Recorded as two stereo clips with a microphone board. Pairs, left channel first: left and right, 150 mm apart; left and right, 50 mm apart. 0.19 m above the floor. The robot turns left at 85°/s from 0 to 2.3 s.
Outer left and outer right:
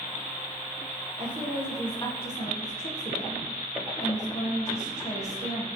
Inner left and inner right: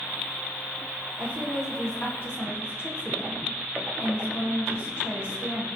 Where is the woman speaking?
135° right, 7.5 m; by 5.7 s 130° left, 7.5 m.